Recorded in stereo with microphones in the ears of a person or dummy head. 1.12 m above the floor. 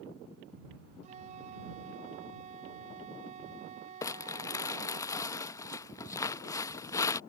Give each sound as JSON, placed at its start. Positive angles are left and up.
{"t": 1.0, "sound": "a flute", "side_deg": -45}
{"t": 4.0, "sound": "crumpling", "side_deg": 20}